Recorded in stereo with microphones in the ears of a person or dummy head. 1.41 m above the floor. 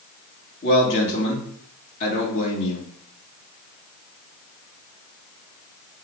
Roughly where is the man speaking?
Left.